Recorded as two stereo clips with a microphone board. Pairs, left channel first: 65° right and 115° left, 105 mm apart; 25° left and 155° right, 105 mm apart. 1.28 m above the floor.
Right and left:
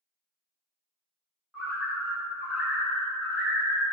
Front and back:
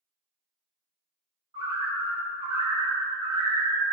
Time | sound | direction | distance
1.5 | a bird | 160° right | 0.9 m